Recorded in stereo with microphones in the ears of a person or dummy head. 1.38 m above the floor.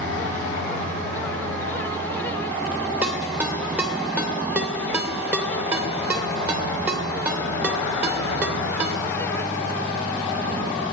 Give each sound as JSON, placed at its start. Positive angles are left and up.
{"t": 3.0, "sound": "a ringtone", "side_deg": -10, "distance_m": 2.5}